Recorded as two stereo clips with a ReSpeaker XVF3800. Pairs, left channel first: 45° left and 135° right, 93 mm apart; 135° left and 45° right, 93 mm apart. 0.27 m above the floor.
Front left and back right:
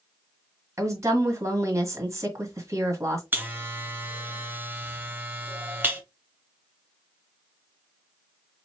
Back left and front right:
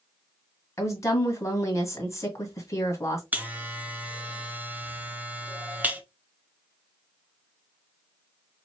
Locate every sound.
0.8 s a woman speaking: straight behind, 1.6 m
3.3 s a buzzer: 95° right, 0.8 m